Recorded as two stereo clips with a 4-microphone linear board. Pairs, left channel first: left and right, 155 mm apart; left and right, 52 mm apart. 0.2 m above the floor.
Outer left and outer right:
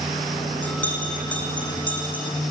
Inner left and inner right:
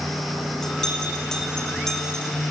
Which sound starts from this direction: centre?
A bell, at 0.6 s.